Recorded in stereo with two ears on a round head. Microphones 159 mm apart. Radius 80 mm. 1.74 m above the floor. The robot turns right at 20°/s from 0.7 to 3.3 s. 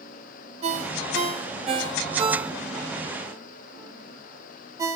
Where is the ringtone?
35° right (ahead or behind), 1.3 m; by 5.0 s 15° right (ahead or behind), 1.3 m.